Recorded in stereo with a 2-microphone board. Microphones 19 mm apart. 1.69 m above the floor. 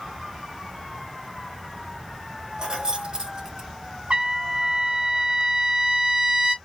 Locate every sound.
2.6 s keys jangling: 45° right (ahead or behind), 1.0 m; by 3.7 s 35° right (ahead or behind), 0.8 m
4.1 s a trumpet: 65° right (ahead or behind), 0.9 m